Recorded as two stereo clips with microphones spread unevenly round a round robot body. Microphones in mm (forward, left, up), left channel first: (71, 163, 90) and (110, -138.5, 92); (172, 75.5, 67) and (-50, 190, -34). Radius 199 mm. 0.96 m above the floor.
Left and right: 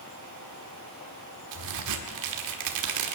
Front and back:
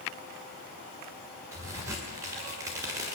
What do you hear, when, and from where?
1.5 s a crack: 125° right, 1.6 m